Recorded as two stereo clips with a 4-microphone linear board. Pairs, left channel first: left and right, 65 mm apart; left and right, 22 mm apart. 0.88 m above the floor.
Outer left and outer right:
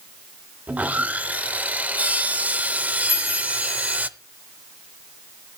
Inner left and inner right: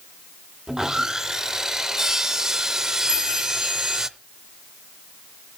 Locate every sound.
0.7 s sawing: 25° right (ahead or behind), 0.6 m
3.1 s a chime: 65° right (ahead or behind), 9.5 m